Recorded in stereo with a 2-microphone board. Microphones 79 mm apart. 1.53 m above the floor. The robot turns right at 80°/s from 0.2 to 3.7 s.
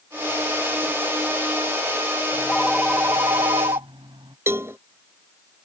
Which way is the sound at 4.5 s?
30° right (ahead or behind).